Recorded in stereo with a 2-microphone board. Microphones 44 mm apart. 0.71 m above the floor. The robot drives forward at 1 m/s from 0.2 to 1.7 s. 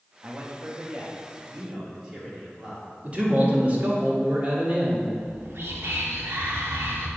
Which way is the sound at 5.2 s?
65° right (ahead or behind).